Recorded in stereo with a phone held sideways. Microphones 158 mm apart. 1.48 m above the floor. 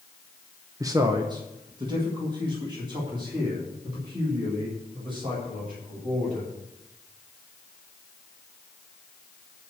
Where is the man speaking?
20° right (ahead or behind), 0.8 m; by 6.5 s 35° right (ahead or behind), 8.5 m.